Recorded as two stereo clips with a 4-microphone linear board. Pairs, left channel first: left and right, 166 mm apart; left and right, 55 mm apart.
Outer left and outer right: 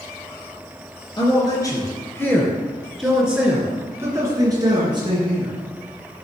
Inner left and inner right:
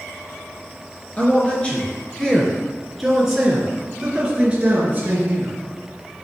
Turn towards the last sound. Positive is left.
turn(degrees=-35)  # may be behind; listen again after turning